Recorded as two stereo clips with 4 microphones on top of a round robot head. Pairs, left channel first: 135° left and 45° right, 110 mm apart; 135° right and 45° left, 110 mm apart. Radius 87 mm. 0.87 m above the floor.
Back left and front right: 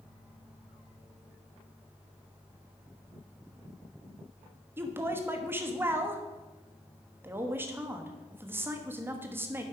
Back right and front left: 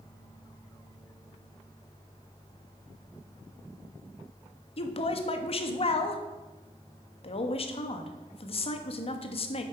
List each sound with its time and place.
4.8 s a woman speaking: 115° right, 1.3 m